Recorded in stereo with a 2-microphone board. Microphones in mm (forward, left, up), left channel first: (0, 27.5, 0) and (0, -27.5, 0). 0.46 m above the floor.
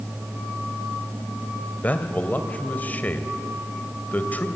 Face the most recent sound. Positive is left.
turn(degrees=30)  # may be behind; listen again after turning